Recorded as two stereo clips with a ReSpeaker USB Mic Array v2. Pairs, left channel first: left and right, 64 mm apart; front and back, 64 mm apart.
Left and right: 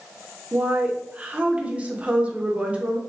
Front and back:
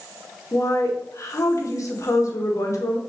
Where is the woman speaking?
25° right, 0.7 m.